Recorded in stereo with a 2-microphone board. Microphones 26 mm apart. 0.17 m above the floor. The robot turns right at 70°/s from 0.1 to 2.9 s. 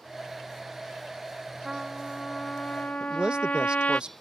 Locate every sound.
1.6 s a trumpet: 15° right; by 4.0 s 70° left
3.0 s a man speaking: 35° right (ahead or behind)